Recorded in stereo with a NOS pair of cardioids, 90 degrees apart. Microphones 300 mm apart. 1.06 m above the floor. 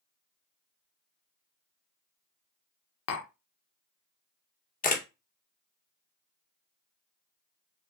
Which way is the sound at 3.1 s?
55° left.